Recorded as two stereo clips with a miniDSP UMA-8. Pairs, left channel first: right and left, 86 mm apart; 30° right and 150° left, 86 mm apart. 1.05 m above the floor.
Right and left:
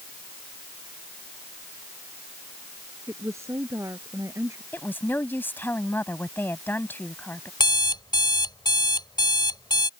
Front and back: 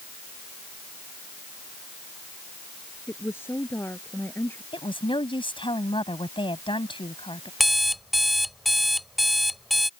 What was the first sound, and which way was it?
A woman speaking, 30° left.